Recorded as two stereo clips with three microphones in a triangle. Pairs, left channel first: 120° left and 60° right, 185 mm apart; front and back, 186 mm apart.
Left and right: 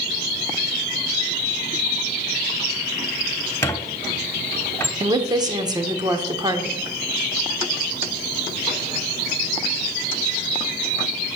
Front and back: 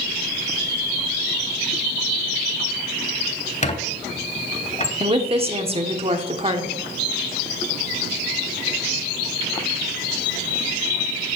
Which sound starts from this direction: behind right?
A woman speaking, at 5.0 s.